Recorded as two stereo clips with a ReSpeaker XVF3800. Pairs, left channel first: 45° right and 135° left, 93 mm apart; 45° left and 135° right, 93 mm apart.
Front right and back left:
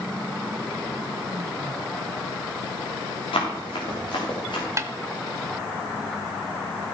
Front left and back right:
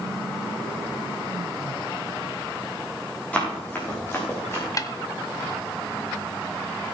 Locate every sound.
3.3 s running footsteps: 30° right, 4 m; by 4.7 s 15° right, 3.5 m
4.8 s a snare drum: 85° left, 0.6 m